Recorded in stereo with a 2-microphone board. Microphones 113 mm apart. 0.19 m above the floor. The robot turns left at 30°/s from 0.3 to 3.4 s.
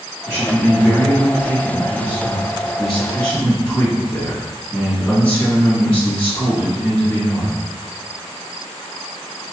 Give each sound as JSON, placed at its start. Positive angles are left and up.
{"t": 0.3, "sound": "a man speaking", "side_deg": -20, "distance_m": 1.7}